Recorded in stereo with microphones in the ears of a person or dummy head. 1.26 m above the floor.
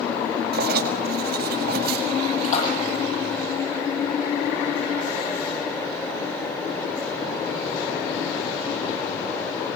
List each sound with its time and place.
0.5 s writing: 55° right (ahead or behind), 5.5 m
2.4 s a splash: 45° left (ahead or behind), 9 m